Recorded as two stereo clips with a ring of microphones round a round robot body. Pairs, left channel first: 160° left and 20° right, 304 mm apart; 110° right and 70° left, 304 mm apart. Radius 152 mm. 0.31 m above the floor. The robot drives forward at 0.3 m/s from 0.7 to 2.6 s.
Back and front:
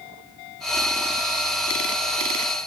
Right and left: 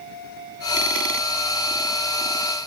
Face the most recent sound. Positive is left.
No sound to turn to.